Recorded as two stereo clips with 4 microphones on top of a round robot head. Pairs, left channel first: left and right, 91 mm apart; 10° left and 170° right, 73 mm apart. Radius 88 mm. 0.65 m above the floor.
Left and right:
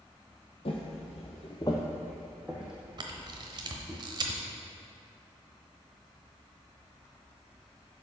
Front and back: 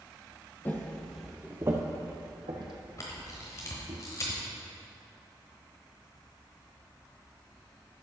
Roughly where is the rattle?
No rattle in this recording.